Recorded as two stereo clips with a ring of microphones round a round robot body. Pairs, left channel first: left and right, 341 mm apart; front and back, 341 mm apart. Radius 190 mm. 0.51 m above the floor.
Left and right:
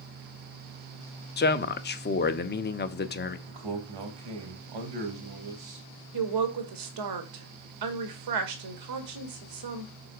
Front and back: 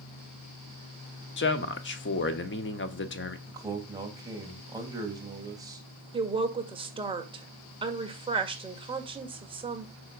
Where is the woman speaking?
105° right, 1.8 m.